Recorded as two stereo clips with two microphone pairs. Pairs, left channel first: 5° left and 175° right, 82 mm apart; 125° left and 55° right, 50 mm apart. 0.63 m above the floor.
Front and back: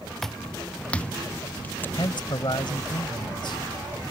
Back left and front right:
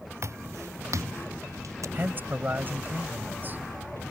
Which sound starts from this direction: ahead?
A man speaking, at 1.9 s.